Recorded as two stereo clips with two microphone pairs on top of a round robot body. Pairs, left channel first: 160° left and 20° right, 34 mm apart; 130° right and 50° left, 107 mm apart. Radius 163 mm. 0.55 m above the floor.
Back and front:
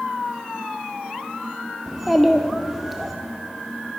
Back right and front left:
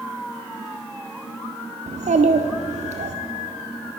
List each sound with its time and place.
1.9 s a child speaking: 70° left, 0.7 m